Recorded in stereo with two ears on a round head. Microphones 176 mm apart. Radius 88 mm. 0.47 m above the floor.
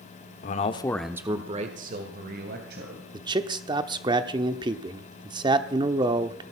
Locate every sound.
0.4 s a man speaking: 45° left (ahead or behind), 1.1 m; by 3.0 s 55° right (ahead or behind), 3 m
3.1 s a man speaking: 25° right (ahead or behind), 0.8 m